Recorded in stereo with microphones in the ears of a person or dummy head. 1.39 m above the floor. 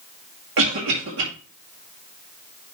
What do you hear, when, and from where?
0.6 s a cough: 70° right (ahead or behind), 2.5 m